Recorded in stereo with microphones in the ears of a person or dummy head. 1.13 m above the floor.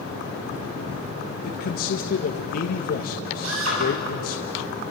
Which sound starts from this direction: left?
A man speaking, at 1.4 s.